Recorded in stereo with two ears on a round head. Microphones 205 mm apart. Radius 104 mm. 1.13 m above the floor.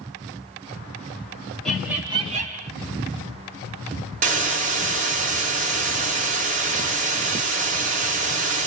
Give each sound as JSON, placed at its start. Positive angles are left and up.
{"t": 1.6, "sound": "laughter", "side_deg": 0, "distance_m": 1.2}
{"t": 4.2, "sound": "a hiss", "side_deg": -35, "distance_m": 0.8}